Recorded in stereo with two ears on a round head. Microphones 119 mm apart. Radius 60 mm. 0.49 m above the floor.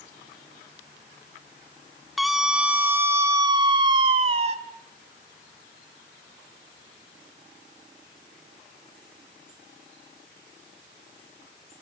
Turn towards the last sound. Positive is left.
turn(degrees=-45)  # may be behind; listen again after turning